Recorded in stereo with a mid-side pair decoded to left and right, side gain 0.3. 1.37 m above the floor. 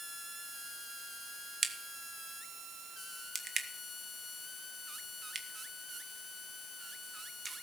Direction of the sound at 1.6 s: 45° right.